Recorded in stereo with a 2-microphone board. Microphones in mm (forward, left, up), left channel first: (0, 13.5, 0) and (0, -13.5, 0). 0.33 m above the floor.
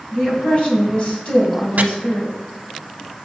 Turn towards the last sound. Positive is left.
turn(degrees=-65)  # may be behind; listen again after turning